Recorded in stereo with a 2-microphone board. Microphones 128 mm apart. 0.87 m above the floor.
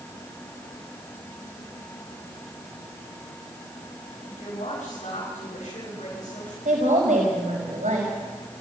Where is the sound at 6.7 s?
80° right, 5 m.